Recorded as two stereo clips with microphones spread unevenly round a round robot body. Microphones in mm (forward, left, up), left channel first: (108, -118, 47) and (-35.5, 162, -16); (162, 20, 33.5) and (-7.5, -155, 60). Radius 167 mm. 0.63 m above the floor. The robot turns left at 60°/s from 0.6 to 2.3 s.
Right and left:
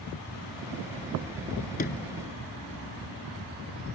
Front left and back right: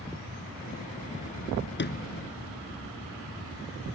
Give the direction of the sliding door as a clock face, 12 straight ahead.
12 o'clock.